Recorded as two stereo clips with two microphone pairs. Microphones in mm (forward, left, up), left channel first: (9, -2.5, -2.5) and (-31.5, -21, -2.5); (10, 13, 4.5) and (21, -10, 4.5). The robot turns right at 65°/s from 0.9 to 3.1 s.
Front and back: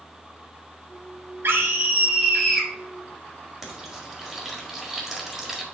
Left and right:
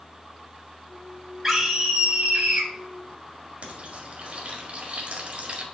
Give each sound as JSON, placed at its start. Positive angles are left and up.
{"t": 1.4, "sound": "a scream", "azimuth_deg": -135, "distance_m": 2.5}
{"t": 3.6, "sound": "frying", "azimuth_deg": -70, "distance_m": 1.7}